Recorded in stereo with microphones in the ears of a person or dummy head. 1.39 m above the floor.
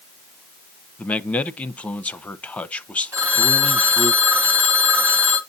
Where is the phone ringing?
10° right (ahead or behind), 0.7 m.